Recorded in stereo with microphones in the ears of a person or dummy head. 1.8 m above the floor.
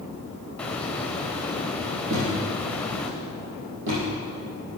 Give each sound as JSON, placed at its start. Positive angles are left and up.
{"t": 0.6, "sound": "a hiss", "side_deg": 5, "distance_m": 0.9}
{"t": 2.1, "sound": "a thud", "side_deg": -60, "distance_m": 3.5}